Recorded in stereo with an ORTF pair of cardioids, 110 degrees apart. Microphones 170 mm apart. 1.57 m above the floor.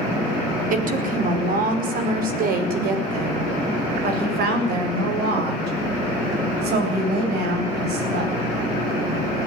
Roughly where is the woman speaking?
Ahead right.